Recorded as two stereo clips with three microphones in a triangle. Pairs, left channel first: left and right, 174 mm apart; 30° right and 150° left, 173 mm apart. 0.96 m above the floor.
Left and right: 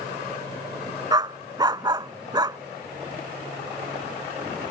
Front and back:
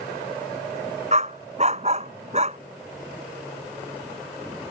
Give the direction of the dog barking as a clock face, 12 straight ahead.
5 o'clock.